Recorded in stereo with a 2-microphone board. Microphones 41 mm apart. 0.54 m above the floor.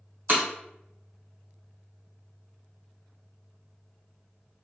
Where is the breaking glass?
50° right (ahead or behind), 1.2 m.